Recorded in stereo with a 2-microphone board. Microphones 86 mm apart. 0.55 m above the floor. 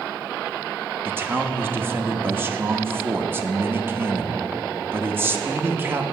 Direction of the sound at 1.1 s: 25° right (ahead or behind).